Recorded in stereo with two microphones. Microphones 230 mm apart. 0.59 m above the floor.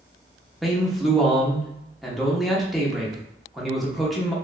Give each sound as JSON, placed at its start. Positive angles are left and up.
{"t": 0.6, "sound": "a man speaking", "side_deg": 0, "distance_m": 0.9}